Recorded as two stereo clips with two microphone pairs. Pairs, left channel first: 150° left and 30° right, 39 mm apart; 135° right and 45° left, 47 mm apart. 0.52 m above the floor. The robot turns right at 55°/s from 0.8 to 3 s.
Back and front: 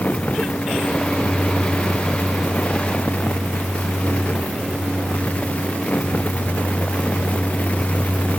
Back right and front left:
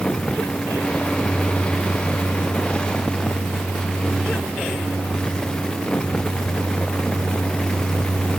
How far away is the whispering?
I don't hear whispering.